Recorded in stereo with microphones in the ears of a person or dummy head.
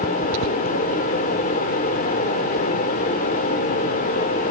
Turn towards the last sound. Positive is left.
turn(degrees=45)  # may be behind; listen again after turning